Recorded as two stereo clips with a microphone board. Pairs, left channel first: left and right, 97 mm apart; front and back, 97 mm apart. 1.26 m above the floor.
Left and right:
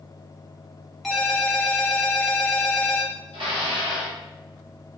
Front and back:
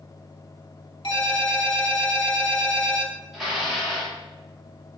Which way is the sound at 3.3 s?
95° right.